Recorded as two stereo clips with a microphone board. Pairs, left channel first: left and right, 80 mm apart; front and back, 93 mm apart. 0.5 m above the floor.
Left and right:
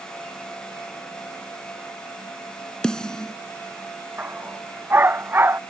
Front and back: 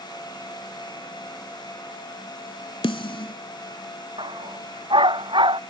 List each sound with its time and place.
2.8 s a snare drum: 10° left
4.2 s a dog barking: 155° right